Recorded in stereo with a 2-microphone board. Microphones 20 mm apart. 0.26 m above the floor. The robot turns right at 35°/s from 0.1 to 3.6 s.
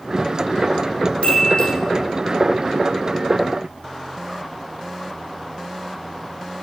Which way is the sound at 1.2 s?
70° left (ahead or behind).